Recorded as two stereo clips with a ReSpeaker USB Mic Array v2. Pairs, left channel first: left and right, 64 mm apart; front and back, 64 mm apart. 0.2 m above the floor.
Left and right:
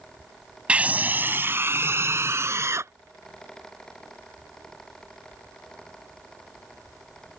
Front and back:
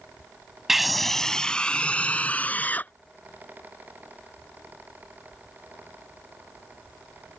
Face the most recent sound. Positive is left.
turn(degrees=-60)